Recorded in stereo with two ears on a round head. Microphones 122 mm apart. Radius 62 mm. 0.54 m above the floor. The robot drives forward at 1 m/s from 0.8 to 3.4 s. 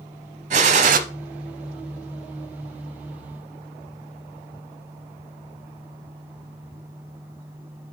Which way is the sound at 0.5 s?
55° right (ahead or behind).